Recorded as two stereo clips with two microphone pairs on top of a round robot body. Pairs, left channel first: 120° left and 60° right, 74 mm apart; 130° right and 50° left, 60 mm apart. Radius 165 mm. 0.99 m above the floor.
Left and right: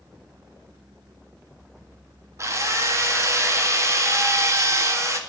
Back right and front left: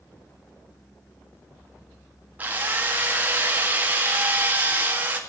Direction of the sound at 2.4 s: 10° right.